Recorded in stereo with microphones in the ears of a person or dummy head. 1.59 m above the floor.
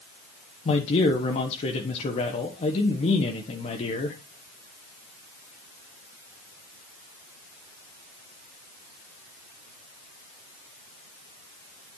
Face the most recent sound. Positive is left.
turn(degrees=35)  # may be behind; listen again after turning